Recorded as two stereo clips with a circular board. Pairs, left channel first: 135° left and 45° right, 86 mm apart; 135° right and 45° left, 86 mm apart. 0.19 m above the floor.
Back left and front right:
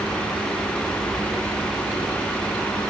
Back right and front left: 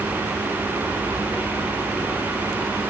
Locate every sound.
Only background noise.